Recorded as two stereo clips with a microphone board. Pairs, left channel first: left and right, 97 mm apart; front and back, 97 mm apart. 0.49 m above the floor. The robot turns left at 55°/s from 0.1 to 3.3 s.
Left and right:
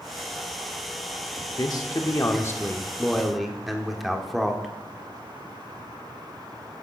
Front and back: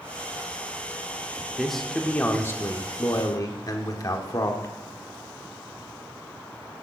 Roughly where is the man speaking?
Left.